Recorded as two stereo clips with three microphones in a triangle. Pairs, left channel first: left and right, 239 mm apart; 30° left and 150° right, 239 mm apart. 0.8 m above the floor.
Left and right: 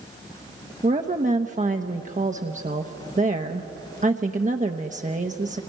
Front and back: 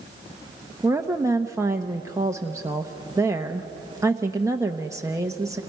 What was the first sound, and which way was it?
A woman speaking, 85° right.